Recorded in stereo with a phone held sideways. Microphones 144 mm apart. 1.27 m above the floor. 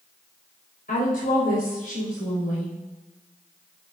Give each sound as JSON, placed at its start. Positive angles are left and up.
{"t": 0.9, "sound": "a woman speaking", "side_deg": 85, "distance_m": 6.5}